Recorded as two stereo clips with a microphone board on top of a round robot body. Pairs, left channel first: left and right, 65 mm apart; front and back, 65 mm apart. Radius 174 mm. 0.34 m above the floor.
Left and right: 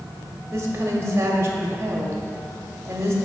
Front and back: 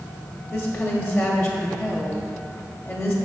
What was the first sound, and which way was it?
A woman speaking, 45° right.